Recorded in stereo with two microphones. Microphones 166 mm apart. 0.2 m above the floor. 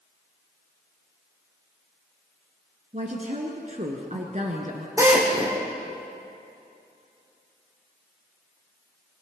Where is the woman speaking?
45° right (ahead or behind), 2 m.